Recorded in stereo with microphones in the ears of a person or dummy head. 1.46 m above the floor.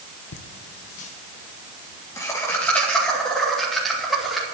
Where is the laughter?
70° left (ahead or behind), 1.3 m; by 4.4 s centre (ahead or behind), 4 m.